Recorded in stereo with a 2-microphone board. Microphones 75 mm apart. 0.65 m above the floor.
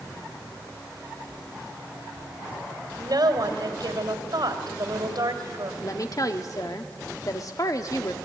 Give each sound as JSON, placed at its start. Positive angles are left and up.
{"t": 3.0, "sound": "a woman speaking", "side_deg": -65, "distance_m": 2.5}
{"t": 5.8, "sound": "a woman speaking", "side_deg": 50, "distance_m": 1.4}